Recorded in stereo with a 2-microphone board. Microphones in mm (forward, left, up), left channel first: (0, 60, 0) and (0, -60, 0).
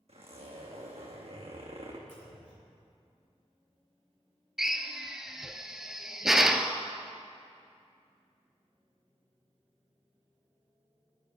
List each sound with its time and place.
0.1 s a zipper: 60° right (ahead or behind), 2.5 m
2.1 s a clunk: 80° left, 3.5 m
4.6 s a drill: 5° right (ahead or behind), 0.7 m